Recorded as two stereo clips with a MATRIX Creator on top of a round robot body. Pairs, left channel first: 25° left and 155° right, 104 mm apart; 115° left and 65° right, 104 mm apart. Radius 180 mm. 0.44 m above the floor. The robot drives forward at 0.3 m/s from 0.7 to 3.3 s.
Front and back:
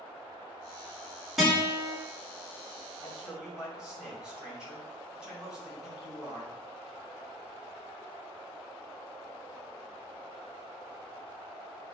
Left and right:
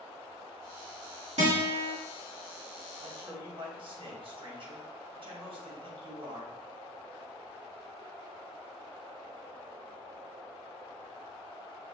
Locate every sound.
1.4 s a guitar: 70° right, 1.8 m; by 1.9 s 75° right, 1.7 m
3.0 s a man speaking: 75° right, 2 m; by 6.6 s 80° right, 2 m